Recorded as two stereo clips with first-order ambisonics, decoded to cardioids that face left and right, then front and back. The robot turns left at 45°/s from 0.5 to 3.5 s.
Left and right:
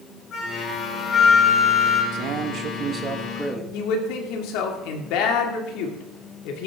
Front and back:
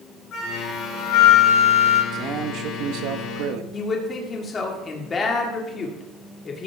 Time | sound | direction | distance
0.3 | a flute | 40° left | 3.5 m
2.1 | a man speaking | 120° right | 1.2 m
3.7 | a man speaking | 70° left | 2 m